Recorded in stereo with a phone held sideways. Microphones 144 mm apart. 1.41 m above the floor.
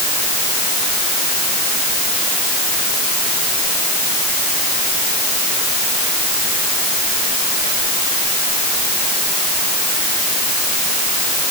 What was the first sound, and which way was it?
Only background noise.